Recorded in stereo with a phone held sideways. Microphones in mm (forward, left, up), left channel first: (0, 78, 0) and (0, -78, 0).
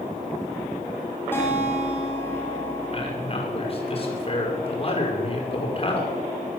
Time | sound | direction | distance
1.3 | a guitar | 15° left (ahead or behind) | 7 m
2.9 | a man speaking | 40° left (ahead or behind) | 6.5 m